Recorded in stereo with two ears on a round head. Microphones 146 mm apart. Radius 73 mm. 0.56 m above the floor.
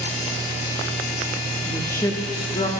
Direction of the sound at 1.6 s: 10° left (ahead or behind).